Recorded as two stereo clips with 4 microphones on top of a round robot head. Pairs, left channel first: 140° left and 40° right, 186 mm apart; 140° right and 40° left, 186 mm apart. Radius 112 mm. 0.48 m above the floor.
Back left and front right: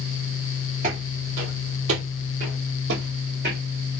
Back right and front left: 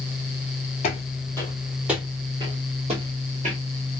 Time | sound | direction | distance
0.8 | footsteps | 90° right | 0.8 m